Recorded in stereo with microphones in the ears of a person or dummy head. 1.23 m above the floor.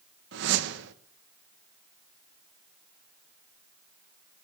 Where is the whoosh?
70° right (ahead or behind), 1.1 m.